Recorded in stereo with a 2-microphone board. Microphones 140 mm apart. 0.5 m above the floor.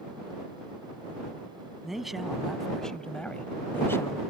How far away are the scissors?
No scissors in this recording.